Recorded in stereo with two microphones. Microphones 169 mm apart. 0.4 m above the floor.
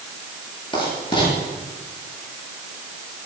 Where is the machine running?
I don't hear a machine running.